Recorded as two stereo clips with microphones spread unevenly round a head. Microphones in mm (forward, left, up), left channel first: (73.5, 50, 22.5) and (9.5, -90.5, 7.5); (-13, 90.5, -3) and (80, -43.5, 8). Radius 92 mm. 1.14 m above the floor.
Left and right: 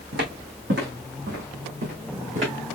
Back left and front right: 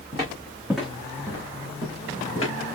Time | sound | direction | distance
0.1 | footsteps | 120° right | 2.5 m